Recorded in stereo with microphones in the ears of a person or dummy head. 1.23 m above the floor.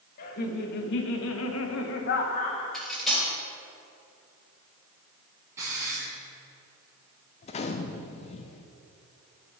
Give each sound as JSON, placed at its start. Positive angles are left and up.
{"t": 0.2, "sound": "laughter", "side_deg": 50, "distance_m": 1.6}
{"t": 2.7, "sound": "cutlery clinking", "side_deg": 0, "distance_m": 3.0}
{"t": 5.6, "sound": "a hiss", "side_deg": -20, "distance_m": 2.5}
{"t": 7.4, "sound": "a gunshot", "side_deg": 40, "distance_m": 0.5}